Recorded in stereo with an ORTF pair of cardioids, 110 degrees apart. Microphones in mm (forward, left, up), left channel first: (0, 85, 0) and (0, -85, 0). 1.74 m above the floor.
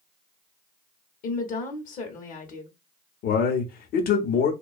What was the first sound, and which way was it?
A woman speaking, 55° left.